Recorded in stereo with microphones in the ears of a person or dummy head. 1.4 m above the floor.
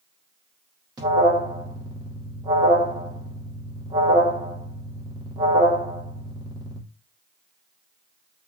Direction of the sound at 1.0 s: 25° right (ahead or behind).